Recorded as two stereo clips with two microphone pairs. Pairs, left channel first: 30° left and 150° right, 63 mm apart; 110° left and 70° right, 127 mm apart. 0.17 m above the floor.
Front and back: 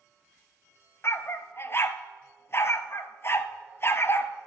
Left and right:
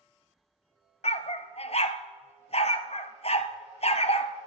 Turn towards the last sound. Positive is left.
turn(degrees=80)